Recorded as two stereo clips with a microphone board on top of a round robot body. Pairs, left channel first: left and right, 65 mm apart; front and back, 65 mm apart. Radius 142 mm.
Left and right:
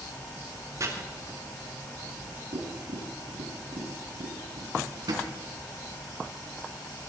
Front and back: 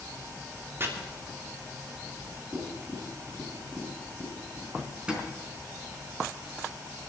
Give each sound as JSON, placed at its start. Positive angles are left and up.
{"t": 0.8, "sound": "chopping", "azimuth_deg": -125, "distance_m": 3.0}
{"t": 2.5, "sound": "tapping", "azimuth_deg": -95, "distance_m": 4.0}
{"t": 4.8, "sound": "a drawer", "azimuth_deg": -105, "distance_m": 4.0}